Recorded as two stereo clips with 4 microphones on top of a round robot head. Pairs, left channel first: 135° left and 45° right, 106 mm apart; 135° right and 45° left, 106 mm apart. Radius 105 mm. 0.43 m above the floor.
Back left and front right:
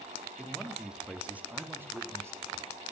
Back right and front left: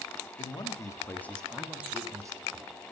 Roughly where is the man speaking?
Behind right.